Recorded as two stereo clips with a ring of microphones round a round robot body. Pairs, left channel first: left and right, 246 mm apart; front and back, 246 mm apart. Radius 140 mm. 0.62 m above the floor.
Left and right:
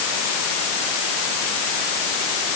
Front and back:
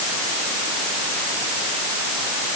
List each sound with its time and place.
Only background noise.